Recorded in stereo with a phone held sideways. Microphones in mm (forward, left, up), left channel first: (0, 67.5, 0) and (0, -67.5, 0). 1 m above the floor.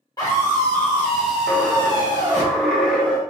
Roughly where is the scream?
Left.